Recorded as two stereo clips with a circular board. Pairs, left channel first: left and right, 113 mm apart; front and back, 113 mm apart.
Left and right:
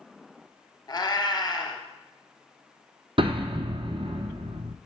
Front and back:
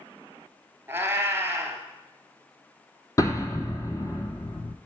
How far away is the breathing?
No breathing in this recording.